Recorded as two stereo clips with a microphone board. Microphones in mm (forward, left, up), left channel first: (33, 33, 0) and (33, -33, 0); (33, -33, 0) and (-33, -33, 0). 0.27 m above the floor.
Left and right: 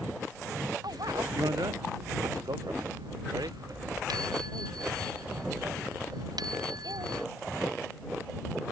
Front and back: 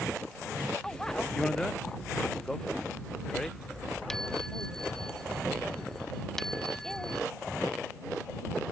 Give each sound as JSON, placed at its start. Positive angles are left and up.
{"t": 0.8, "sound": "a bicycle bell", "azimuth_deg": -80}